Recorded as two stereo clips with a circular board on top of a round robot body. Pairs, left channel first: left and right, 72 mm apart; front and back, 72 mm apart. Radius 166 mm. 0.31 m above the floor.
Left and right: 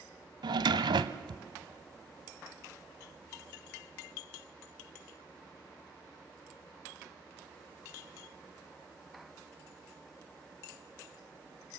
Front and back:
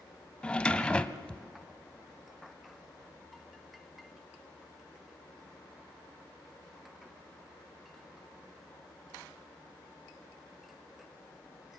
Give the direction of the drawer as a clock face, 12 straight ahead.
3 o'clock.